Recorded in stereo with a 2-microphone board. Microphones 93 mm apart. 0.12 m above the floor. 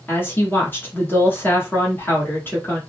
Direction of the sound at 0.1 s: 20° left (ahead or behind).